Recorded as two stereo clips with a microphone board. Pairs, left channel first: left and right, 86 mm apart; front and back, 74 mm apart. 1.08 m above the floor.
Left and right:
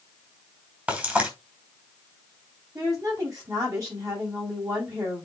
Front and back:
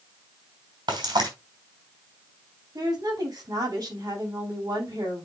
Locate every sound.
0.9 s frying: 160° right, 4.5 m
2.8 s a woman speaking: 140° right, 8 m